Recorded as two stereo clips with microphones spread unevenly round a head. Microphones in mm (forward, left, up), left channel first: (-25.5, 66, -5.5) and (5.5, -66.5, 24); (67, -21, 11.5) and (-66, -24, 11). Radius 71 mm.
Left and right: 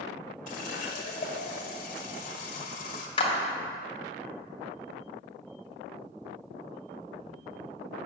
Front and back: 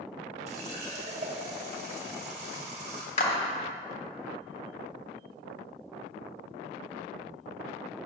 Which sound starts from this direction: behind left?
A running tap, at 0.5 s.